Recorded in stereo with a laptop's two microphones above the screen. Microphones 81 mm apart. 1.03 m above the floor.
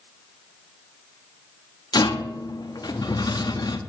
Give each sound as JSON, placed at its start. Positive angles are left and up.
{"t": 1.9, "sound": "a rattle", "side_deg": 60, "distance_m": 0.7}